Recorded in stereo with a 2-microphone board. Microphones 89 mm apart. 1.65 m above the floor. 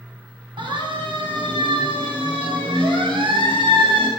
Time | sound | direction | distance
0.6 | a siren | 65° right (ahead or behind) | 9 m